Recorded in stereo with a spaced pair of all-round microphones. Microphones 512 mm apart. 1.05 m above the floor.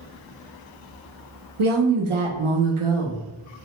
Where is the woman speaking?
65° right (ahead or behind), 0.7 m.